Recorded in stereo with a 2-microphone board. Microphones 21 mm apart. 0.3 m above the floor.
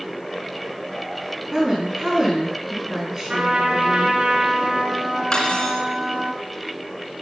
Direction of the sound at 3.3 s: 35° right (ahead or behind).